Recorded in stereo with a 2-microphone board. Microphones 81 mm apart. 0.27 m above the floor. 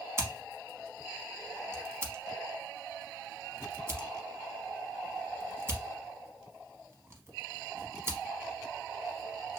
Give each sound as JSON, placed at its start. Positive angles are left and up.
{"t": 0.2, "sound": "scissors", "side_deg": -30, "distance_m": 0.8}